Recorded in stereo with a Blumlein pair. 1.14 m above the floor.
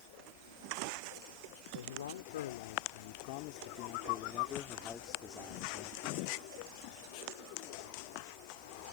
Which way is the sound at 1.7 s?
65° left.